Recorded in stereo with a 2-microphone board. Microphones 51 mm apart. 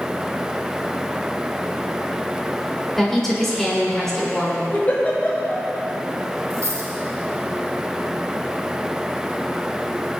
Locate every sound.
3.0 s a woman speaking: 5° left (ahead or behind), 3.5 m
4.7 s a giggle: 30° left (ahead or behind), 3.5 m
6.5 s a dropped coin: 85° right, 3.5 m